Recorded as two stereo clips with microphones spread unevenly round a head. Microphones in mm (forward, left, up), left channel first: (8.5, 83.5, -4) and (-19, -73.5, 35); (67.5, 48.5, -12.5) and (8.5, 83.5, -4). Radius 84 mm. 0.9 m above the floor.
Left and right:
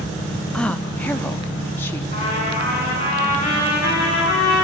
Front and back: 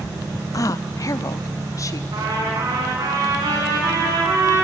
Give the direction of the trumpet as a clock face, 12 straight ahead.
8 o'clock.